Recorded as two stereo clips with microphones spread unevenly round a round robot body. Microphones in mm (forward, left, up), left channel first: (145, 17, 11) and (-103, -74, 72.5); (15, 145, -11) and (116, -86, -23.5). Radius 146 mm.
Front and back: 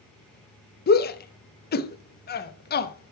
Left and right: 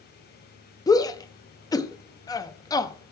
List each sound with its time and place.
0.9 s a shout: 40° left, 0.7 m